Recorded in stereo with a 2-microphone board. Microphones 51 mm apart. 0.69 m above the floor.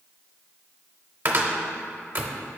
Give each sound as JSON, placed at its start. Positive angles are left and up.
{"t": 1.2, "sound": "a cupboard door", "side_deg": -40, "distance_m": 0.6}